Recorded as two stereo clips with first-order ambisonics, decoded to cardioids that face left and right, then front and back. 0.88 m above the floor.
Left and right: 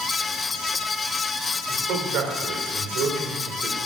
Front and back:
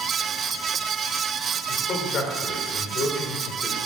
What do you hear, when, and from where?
1.7 s a man speaking: 55° right, 3 m